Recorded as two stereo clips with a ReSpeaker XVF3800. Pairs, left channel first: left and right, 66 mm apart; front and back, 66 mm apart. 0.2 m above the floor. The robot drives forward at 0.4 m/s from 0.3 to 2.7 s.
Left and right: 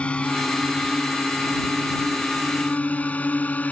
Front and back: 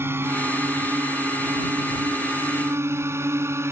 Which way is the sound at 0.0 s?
155° left.